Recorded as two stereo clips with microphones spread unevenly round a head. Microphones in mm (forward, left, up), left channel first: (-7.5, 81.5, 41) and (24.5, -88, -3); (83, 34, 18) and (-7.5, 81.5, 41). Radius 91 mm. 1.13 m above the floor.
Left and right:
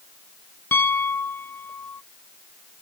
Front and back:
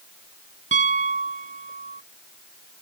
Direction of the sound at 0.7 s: Straight behind.